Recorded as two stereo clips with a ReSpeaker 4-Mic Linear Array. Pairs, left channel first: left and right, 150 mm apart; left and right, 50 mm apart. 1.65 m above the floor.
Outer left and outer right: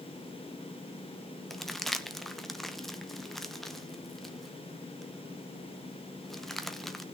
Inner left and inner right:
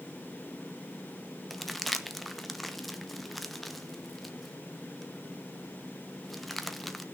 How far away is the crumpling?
About 0.8 m.